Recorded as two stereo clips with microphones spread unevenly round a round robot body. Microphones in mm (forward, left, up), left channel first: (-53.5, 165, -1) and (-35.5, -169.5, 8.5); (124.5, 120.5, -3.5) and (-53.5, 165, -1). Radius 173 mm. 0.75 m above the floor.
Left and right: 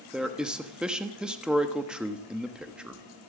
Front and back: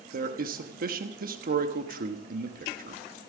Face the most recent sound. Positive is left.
turn(degrees=-175)